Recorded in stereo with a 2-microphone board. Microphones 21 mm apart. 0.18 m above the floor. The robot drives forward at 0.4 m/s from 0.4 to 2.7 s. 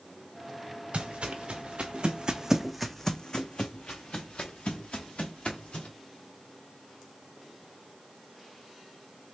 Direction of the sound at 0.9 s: 85° right.